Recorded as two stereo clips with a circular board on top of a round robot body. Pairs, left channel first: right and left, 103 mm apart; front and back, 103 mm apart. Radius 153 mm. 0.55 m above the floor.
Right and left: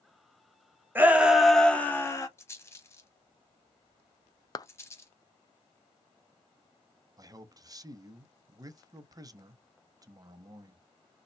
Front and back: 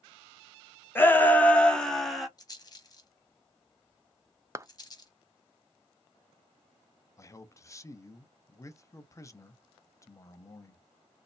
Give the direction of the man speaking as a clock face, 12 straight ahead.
10 o'clock.